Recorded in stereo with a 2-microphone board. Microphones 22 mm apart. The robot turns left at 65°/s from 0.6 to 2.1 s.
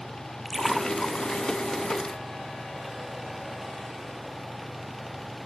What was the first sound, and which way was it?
A splash, 5° left (ahead or behind).